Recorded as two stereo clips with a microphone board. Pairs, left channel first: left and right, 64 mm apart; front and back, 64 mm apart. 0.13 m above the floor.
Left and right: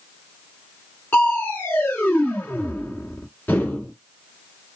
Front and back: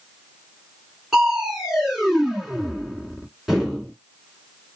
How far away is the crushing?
About 1.6 m.